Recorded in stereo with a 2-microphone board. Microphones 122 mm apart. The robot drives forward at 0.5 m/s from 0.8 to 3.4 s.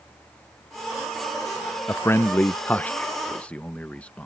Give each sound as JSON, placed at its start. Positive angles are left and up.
{"t": 1.9, "sound": "a man speaking", "side_deg": 20}